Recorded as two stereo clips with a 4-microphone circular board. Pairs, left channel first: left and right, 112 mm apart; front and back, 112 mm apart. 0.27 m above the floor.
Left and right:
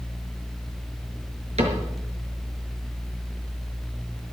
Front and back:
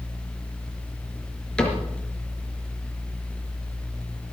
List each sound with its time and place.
1.6 s a cupboard door: 80° right, 4.5 m